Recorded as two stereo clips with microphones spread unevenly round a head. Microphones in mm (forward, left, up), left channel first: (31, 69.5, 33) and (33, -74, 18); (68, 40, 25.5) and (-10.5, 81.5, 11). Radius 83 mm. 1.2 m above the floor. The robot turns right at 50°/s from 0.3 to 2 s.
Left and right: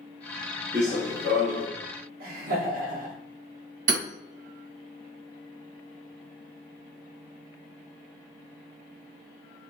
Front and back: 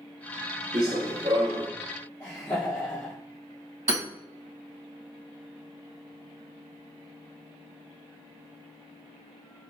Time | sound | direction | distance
0.7 | running footsteps | 175° right | 1.5 m
2.2 | laughter | 105° right | 1.3 m
3.9 | hammering | 135° right | 1.8 m